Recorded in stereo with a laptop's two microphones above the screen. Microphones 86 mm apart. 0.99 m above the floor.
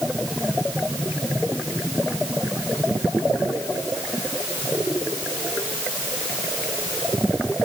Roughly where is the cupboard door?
No cupboard door in this recording.